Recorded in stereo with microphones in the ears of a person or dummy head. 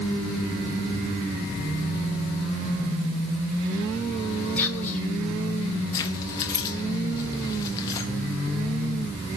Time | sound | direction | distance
4.6 | whispering | 5° left (ahead or behind) | 1.0 m
5.9 | keys jangling | 20° left (ahead or behind) | 0.5 m